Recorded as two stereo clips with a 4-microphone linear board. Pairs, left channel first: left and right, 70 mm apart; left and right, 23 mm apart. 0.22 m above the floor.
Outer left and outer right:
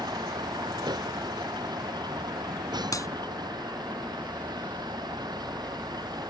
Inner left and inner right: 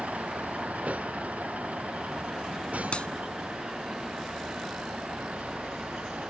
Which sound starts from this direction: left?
A clap, at 2.9 s.